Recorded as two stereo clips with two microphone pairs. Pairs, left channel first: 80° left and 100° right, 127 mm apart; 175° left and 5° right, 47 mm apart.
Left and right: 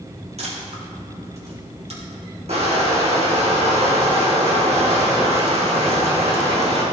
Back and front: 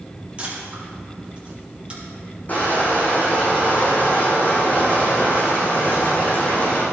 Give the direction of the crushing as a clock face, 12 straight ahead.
4 o'clock.